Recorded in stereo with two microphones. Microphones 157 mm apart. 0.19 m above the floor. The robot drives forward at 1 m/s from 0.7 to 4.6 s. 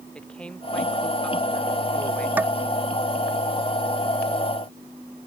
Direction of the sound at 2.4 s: 10° right (ahead or behind).